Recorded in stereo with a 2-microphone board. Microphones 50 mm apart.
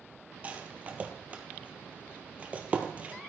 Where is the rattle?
30° right (ahead or behind), 1.2 m.